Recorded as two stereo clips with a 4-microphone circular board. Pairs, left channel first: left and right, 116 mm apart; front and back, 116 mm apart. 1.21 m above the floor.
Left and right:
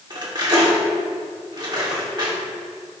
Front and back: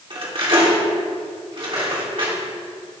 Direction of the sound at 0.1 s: 140° right.